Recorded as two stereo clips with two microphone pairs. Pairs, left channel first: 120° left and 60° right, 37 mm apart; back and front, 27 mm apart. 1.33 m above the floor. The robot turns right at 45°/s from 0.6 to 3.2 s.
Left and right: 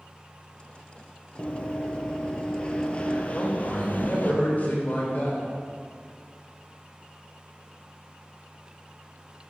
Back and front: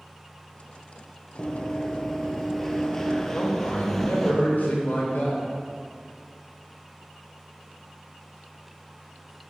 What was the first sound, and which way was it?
Running footsteps, 145° left.